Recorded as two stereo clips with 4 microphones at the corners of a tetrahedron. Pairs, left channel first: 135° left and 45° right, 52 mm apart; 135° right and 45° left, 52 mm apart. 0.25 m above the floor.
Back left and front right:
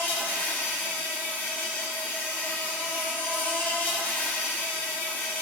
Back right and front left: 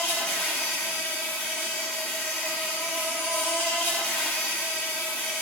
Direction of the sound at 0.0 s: 175° right.